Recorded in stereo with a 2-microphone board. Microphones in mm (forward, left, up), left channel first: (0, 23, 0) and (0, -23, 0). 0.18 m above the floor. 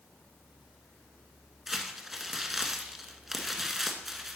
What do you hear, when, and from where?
1.7 s crumpling: 5° right (ahead or behind), 1.0 m